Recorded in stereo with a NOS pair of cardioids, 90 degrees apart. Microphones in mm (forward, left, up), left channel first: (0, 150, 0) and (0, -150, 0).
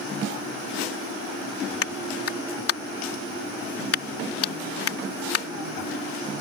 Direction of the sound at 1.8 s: 50° left.